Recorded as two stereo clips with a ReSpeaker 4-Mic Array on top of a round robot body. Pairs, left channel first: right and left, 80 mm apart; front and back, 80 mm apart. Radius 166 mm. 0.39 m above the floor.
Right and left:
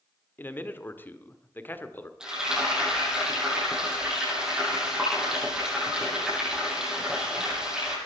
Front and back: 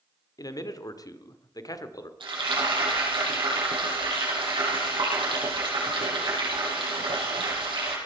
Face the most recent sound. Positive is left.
turn(degrees=170)